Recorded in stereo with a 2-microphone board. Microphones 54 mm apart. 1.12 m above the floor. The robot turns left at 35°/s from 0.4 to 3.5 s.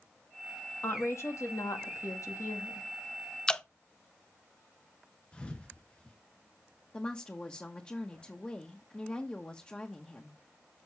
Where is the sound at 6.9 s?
25° left (ahead or behind), 1.1 m.